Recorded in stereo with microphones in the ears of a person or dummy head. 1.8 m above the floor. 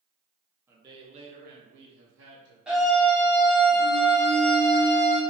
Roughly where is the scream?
Centre.